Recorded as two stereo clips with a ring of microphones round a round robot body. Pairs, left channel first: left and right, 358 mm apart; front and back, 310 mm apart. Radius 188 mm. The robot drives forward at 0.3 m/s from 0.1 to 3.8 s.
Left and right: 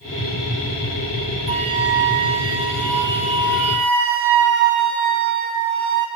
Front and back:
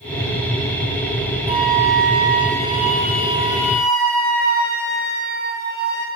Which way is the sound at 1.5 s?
105° right.